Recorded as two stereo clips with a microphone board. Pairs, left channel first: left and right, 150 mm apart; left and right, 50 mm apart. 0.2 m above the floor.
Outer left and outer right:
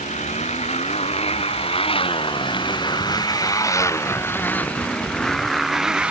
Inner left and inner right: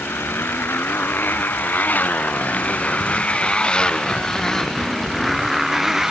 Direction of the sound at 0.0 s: 50° left (ahead or behind).